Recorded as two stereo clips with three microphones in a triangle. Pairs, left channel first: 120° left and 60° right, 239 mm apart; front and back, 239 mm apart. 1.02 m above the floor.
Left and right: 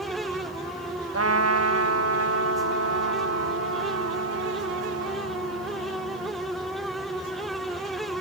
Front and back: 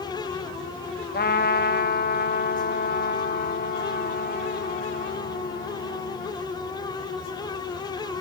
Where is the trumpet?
50° right, 1.3 m.